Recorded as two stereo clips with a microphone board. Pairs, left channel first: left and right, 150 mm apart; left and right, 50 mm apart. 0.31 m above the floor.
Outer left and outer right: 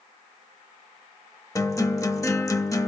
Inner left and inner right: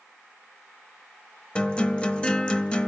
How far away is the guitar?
About 0.8 m.